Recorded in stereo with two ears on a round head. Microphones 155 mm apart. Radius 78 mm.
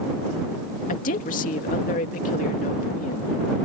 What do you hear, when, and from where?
0.9 s a woman speaking: 50° left (ahead or behind)